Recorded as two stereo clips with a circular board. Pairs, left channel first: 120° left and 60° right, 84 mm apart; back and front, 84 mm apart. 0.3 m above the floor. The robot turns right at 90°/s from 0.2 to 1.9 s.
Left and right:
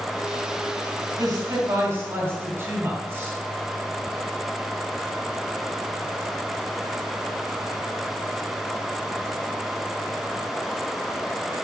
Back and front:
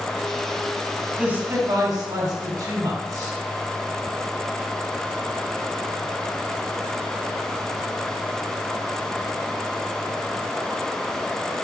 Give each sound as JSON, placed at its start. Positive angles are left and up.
{"t": 1.2, "sound": "a man speaking", "azimuth_deg": -75, "distance_m": 2.5}